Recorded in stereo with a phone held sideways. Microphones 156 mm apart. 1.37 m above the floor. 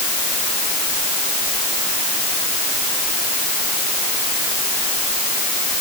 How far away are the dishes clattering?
I don't hear dishes clattering.